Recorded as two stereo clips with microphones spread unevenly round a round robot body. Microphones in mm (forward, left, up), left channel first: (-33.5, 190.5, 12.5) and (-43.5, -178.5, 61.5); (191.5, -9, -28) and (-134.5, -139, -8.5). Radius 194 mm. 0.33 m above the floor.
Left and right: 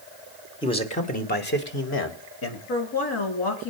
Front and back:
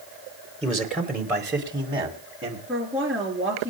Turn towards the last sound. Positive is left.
turn(degrees=115)